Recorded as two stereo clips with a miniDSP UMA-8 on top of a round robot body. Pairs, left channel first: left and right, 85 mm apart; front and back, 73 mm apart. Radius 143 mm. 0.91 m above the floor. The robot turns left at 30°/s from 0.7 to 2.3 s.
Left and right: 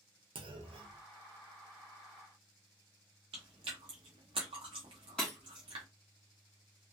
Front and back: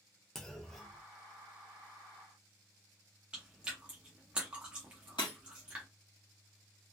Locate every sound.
0.3 s a clunk: 85° right, 0.5 m; by 1.0 s 95° right, 0.5 m
3.3 s chewing: 105° right, 0.5 m
5.2 s breaking glass: 10° left, 0.5 m